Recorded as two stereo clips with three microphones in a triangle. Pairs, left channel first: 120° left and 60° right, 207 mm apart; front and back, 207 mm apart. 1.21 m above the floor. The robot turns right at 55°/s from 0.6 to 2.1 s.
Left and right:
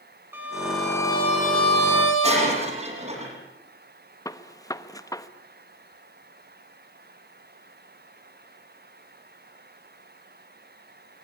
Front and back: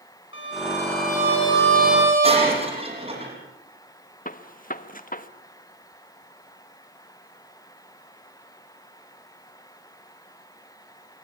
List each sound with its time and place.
0.3 s a violin: 20° left, 7.5 m; by 2.5 s 105° left, 7.5 m
2.2 s breaking glass: 115° right, 9.5 m
4.2 s a gunshot: 45° left, 1.2 m